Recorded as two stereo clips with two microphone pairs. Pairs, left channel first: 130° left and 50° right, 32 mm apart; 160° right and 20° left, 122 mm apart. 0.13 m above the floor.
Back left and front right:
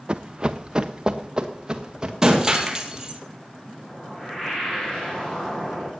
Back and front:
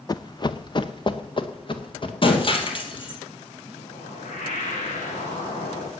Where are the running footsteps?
100° right, 0.6 m; by 2.1 s 115° right, 2 m.